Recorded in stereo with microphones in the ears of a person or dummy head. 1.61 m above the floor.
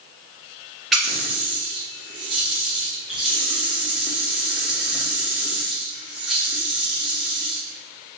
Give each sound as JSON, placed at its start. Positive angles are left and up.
{"t": 0.9, "sound": "a running tap", "side_deg": 0, "distance_m": 1.1}